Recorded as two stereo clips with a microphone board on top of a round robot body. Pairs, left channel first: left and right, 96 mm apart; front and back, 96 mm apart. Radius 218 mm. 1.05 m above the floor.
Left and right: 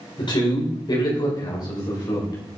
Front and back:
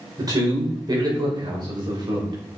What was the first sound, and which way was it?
A man speaking, 130° left.